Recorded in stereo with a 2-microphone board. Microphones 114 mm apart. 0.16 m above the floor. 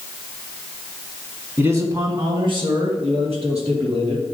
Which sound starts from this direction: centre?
A man speaking, at 1.6 s.